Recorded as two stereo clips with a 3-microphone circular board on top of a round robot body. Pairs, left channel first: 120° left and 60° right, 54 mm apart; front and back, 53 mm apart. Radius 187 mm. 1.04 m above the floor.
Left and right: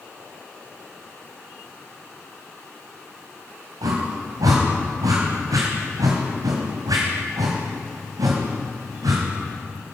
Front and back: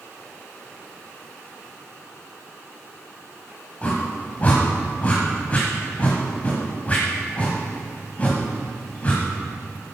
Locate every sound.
3.8 s a whoosh: 65° right, 1.1 m